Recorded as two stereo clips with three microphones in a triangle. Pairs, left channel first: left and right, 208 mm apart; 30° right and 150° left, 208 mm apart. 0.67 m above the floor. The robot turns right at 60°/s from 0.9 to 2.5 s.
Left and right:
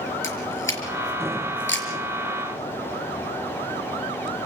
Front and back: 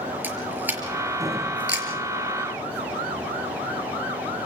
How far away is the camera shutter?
About 5.5 m.